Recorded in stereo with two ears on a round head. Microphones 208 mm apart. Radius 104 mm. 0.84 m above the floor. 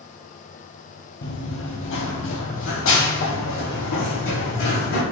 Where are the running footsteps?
55° left (ahead or behind), 1.3 m; by 5.0 s 60° left (ahead or behind), 3 m.